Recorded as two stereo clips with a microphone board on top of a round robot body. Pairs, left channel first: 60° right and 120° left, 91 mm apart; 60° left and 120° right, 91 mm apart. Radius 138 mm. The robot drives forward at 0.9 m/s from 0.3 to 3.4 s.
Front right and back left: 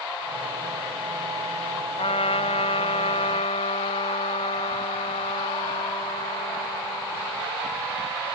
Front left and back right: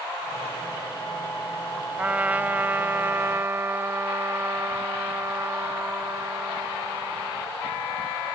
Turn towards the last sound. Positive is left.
turn(degrees=-55)